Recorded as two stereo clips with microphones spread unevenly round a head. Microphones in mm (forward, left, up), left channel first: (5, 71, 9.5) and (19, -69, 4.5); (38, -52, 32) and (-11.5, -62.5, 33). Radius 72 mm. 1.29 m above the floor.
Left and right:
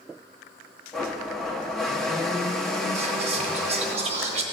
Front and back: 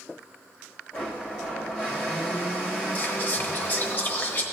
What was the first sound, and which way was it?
A blender, 15° left.